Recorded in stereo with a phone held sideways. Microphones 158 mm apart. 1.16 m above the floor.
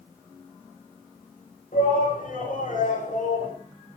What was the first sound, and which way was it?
A shout, 65° left (ahead or behind).